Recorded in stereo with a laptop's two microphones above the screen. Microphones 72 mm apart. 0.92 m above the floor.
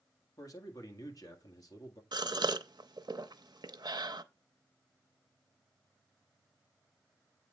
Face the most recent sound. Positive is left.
turn(degrees=-70)  # may be behind; listen again after turning